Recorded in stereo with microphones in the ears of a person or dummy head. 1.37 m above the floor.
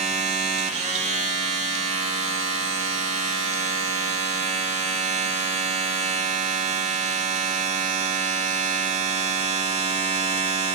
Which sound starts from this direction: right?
A machine running, at 0.0 s.